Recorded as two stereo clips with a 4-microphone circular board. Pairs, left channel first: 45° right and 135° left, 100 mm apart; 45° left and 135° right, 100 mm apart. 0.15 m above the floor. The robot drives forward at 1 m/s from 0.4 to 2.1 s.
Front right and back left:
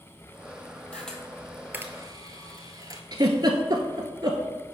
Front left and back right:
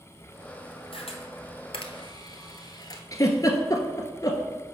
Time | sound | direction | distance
0.9 | a camera shutter | 35° left | 1.5 m
3.1 | a giggle | 95° left | 0.9 m